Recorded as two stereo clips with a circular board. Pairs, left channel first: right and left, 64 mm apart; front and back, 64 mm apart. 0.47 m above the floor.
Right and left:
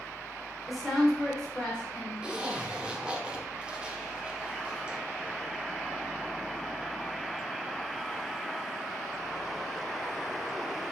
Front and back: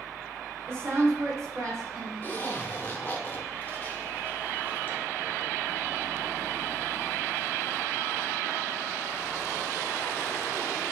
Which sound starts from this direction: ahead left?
A zipper, at 2.2 s.